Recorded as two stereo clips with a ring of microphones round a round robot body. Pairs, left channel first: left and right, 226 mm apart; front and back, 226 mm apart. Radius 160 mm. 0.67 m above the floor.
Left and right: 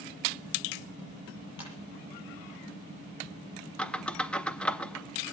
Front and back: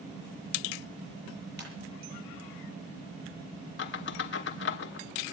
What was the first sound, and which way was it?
A ringtone, 140° left.